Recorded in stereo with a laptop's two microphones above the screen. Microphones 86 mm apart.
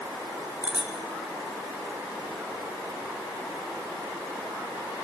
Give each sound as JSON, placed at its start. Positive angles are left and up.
{"t": 0.6, "sound": "a bicycle bell", "side_deg": -15, "distance_m": 2.0}